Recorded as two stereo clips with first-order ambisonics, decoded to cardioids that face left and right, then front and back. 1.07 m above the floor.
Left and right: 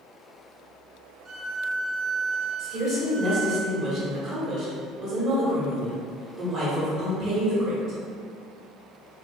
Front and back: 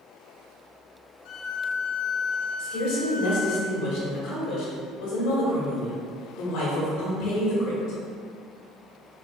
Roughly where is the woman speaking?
Ahead right.